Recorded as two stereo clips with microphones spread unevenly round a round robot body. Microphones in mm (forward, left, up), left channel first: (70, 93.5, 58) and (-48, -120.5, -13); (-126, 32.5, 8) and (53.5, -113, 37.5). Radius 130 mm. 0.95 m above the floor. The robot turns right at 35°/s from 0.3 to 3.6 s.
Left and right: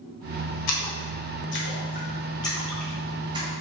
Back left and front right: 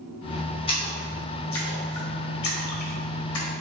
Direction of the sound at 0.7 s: 70° left.